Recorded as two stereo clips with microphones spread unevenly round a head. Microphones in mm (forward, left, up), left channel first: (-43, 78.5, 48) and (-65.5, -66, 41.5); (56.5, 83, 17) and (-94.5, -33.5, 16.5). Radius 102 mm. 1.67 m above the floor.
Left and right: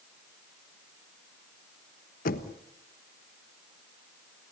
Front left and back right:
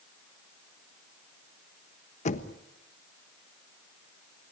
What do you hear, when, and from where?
2.2 s knocking: 85° left, 1.3 m